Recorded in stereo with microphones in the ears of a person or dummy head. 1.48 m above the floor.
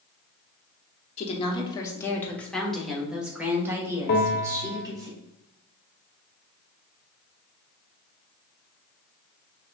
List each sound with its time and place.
1.2 s a woman speaking: 35° left (ahead or behind), 1.1 m; by 5.1 s 15° right (ahead or behind), 2.5 m
4.1 s a bell: 50° left (ahead or behind), 1.0 m